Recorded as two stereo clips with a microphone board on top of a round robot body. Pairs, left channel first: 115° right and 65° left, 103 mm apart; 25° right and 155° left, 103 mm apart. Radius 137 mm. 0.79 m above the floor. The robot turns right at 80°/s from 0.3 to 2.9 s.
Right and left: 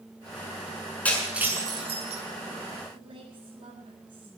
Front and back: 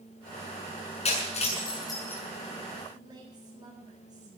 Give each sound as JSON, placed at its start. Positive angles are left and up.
{"t": 1.1, "sound": "breaking glass", "azimuth_deg": -35, "distance_m": 6.5}
{"t": 2.9, "sound": "a woman speaking", "azimuth_deg": 105, "distance_m": 7.0}